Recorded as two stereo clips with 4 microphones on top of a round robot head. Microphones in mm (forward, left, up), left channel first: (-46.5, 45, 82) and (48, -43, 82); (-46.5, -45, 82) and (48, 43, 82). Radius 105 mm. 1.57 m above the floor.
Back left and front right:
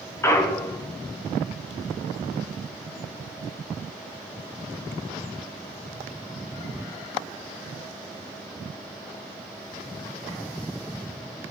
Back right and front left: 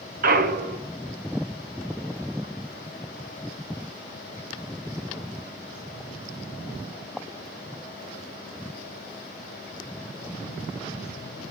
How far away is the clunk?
About 0.6 m.